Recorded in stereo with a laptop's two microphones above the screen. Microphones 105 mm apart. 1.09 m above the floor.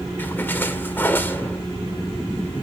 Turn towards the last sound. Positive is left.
turn(degrees=20)  # may be behind; listen again after turning